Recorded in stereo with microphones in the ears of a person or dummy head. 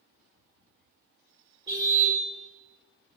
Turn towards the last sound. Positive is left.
turn(degrees=-25)  # may be behind; listen again after turning